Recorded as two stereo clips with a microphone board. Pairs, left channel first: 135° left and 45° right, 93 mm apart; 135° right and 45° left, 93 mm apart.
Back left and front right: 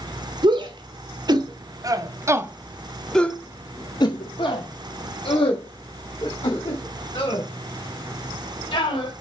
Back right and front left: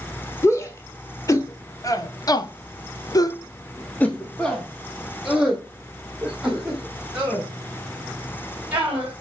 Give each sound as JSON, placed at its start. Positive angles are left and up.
{"t": 0.4, "sound": "a shout", "azimuth_deg": -80, "distance_m": 1.6}